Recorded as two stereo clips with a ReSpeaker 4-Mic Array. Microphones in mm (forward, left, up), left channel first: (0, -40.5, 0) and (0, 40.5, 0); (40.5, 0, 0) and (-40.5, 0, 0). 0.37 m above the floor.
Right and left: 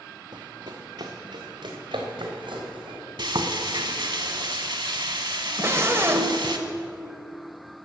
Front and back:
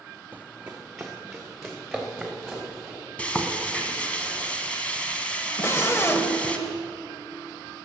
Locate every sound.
0.3 s running footsteps: 115° left, 0.9 m; by 3.0 s 90° left, 4 m
3.2 s frying: 75° left, 1.0 m
5.6 s a scream: 45° left, 1.2 m